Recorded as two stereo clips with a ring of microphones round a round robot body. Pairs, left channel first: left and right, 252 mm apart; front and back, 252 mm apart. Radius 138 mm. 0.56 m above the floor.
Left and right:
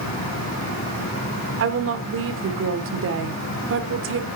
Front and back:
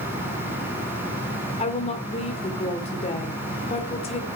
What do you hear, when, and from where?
1.6 s a woman speaking: 65° right, 1.9 m